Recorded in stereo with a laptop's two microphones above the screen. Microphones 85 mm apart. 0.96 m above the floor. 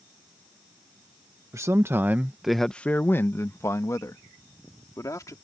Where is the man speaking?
35° right (ahead or behind); by 5.3 s 40° left (ahead or behind).